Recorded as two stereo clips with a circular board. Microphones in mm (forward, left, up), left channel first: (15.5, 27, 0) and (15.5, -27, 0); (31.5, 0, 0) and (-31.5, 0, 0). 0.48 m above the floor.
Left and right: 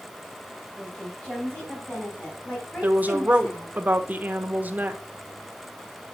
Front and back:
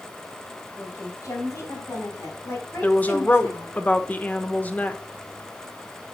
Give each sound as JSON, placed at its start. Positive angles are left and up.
{"t": 0.8, "sound": "a woman speaking", "azimuth_deg": 20, "distance_m": 3.5}
{"t": 2.8, "sound": "a woman speaking", "azimuth_deg": -50, "distance_m": 0.9}